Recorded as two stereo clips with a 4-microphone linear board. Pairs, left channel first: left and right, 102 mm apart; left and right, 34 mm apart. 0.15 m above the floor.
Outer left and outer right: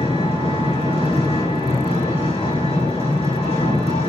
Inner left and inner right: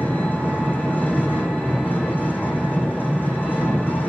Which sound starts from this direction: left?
An engine running, at 0.0 s.